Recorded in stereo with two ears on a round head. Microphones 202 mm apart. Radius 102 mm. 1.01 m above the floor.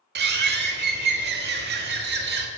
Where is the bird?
45° right (ahead or behind), 1.2 m.